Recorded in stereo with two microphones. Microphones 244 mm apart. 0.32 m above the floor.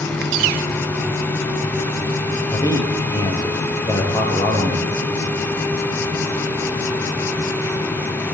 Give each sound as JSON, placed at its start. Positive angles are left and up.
{"t": 2.5, "sound": "a man speaking", "side_deg": 15, "distance_m": 5.5}